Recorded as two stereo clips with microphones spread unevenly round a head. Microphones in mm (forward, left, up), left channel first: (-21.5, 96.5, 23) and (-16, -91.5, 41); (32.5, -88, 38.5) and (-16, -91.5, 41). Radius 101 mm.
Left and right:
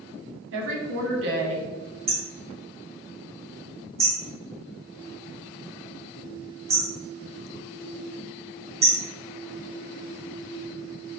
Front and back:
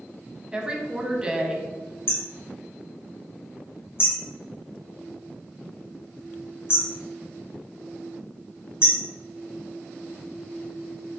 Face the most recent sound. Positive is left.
turn(degrees=-30)